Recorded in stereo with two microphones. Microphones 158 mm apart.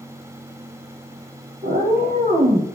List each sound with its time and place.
1.6 s a cat meowing: 60° right (ahead or behind), 1.0 m; by 2.7 s 40° right (ahead or behind), 1.3 m